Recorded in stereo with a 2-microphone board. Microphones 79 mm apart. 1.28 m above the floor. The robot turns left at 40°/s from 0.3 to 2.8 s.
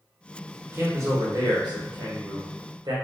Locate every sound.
0.7 s a man speaking: 30° right, 0.8 m; by 2.9 s 115° right, 0.8 m